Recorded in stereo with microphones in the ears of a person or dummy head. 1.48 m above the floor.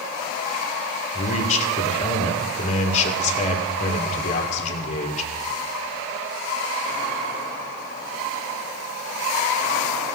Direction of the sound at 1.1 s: 35° left (ahead or behind).